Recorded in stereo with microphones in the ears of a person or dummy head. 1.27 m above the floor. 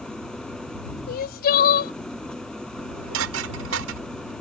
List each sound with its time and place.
0.0 s an engine running: 15° left (ahead or behind)
1.1 s crying: 55° left (ahead or behind)
2.8 s dishes clattering: 75° right (ahead or behind)